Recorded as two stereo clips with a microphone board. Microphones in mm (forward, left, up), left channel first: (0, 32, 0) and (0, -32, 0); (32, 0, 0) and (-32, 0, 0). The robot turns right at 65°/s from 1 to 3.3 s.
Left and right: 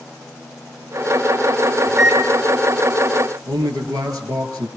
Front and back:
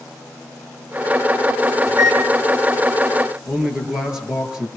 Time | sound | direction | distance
1.9 | a microwave | 175° left | 6 m
3.5 | a man speaking | 100° right | 6 m